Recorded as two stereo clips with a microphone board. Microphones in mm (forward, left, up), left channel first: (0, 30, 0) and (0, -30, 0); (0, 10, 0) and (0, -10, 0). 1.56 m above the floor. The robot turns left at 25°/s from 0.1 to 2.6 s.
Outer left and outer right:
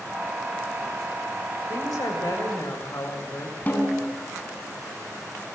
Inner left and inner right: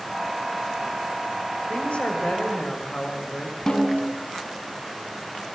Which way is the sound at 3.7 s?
25° left (ahead or behind).